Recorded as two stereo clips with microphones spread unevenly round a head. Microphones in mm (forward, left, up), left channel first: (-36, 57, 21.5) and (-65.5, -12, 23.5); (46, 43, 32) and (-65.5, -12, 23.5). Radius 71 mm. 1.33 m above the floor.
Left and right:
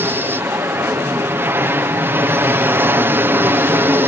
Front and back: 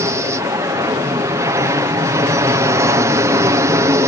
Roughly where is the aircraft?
Behind right.